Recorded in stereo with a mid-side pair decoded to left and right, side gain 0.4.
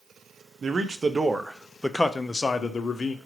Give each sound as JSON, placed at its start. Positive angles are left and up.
{"t": 0.6, "sound": "a man speaking", "azimuth_deg": -45, "distance_m": 0.8}